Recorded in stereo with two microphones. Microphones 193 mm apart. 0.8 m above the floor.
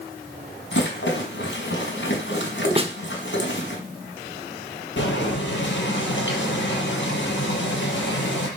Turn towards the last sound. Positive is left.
turn(degrees=70)  # may be behind; listen again after turning